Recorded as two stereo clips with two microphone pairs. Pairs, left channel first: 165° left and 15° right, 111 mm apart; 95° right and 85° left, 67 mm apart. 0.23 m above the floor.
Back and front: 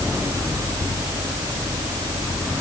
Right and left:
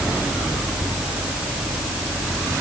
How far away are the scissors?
I don't hear scissors.